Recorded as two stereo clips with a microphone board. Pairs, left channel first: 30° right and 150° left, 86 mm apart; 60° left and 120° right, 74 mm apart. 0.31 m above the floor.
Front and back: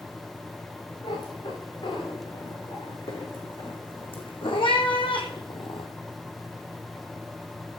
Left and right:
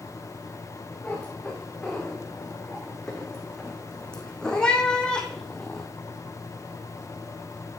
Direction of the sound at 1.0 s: 20° right.